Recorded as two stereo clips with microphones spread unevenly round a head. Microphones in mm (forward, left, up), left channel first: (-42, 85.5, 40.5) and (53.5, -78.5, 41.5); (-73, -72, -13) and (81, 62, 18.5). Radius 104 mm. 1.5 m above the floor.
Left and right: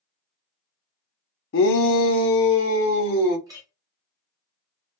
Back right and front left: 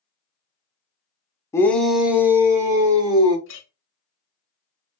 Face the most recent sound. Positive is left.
turn(degrees=-130)